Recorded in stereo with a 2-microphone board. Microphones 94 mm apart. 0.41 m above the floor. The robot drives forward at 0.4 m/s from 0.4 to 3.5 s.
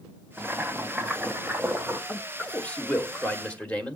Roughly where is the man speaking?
Centre.